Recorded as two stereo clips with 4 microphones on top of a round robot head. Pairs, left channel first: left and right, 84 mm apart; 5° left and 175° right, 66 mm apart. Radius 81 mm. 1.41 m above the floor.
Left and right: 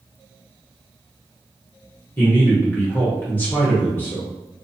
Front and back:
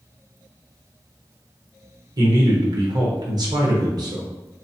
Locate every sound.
2.2 s a man speaking: 160° left, 1.1 m